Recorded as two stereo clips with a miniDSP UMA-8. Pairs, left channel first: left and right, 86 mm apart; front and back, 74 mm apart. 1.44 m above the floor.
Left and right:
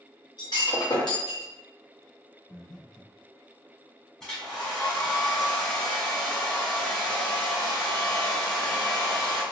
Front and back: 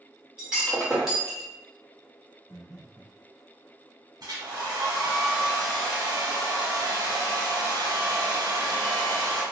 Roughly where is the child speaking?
I don't hear a child speaking.